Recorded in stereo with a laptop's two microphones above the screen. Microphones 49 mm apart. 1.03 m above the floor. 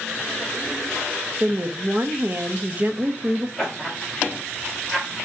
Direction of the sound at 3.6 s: 5° left (ahead or behind).